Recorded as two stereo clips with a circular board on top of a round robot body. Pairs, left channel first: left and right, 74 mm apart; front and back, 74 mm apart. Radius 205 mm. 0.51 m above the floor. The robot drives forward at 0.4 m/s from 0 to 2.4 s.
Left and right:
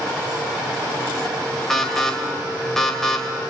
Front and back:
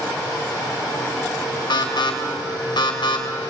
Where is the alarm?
5° left, 3.5 m.